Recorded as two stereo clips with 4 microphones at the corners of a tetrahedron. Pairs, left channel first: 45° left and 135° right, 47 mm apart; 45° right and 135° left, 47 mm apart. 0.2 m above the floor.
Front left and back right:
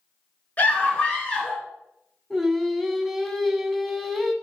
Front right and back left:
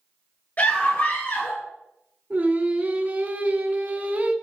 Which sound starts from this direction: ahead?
A scream, at 0.6 s.